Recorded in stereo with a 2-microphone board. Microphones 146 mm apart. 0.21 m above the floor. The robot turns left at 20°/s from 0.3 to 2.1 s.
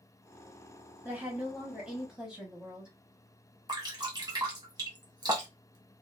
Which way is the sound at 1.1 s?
10° right (ahead or behind).